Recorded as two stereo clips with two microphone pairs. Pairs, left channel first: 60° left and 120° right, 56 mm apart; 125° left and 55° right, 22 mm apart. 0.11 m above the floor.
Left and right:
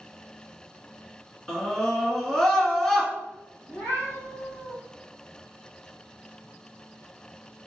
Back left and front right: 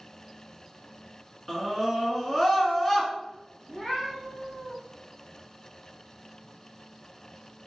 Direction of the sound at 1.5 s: 115° left.